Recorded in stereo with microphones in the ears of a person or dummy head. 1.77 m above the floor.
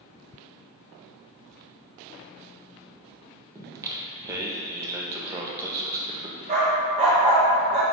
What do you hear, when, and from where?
3.5 s singing: 15° right (ahead or behind), 0.7 m
6.5 s a dog barking: 35° right (ahead or behind), 1.6 m